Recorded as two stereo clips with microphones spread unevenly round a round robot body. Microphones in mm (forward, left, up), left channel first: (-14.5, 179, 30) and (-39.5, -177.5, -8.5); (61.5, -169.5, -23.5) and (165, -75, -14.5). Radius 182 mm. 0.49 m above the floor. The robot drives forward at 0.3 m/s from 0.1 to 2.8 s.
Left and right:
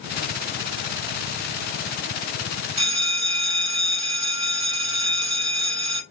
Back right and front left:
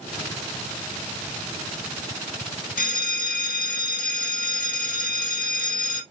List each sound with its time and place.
2.8 s a bell: 140° right, 1.0 m